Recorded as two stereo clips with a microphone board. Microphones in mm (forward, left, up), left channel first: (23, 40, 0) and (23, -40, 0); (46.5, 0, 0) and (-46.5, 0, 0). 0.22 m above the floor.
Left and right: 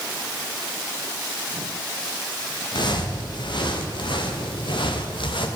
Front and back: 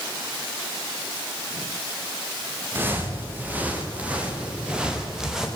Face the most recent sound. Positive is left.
turn(degrees=95)